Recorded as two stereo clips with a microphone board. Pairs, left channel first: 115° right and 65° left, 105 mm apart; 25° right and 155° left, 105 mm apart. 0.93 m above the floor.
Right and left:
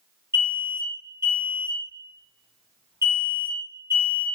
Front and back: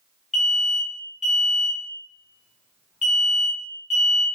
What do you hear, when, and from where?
0.3 s an alarm: 75° left, 1.4 m